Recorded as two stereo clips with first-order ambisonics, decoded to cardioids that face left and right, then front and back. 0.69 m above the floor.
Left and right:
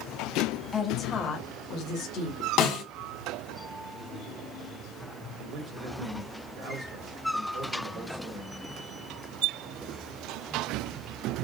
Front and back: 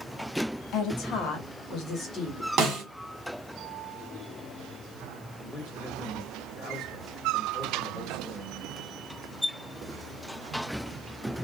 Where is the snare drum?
125° left, 1.8 m.